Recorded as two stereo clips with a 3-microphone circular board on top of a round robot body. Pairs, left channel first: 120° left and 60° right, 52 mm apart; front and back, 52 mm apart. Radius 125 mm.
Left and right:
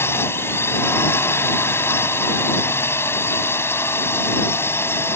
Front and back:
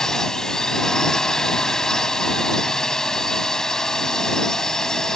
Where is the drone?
80° left.